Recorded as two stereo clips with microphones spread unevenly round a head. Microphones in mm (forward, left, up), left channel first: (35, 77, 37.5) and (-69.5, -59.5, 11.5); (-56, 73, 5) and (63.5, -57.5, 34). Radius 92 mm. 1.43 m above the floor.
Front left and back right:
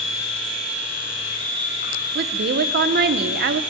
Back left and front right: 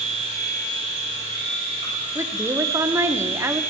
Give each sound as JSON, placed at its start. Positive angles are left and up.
{"t": 0.0, "sound": "a machine running", "azimuth_deg": 10, "distance_m": 8.0}
{"t": 2.1, "sound": "a woman speaking", "azimuth_deg": -125, "distance_m": 0.9}